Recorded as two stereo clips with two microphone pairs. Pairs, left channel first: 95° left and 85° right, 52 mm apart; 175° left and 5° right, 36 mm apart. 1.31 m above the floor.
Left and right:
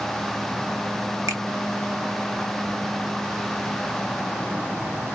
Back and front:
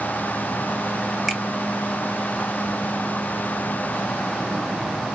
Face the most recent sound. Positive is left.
turn(degrees=-95)